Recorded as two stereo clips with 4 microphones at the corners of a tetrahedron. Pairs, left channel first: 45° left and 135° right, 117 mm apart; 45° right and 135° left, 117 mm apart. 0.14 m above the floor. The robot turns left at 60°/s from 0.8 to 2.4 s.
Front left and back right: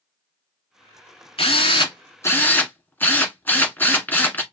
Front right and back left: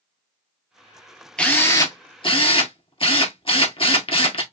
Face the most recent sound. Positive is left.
turn(degrees=-25)